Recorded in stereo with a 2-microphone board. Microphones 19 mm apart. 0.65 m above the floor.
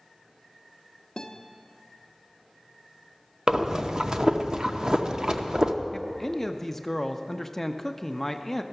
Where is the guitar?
35° left (ahead or behind), 0.9 m.